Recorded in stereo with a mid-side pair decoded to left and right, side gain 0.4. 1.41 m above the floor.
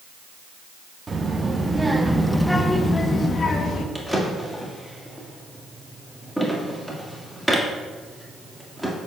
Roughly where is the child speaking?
Ahead right.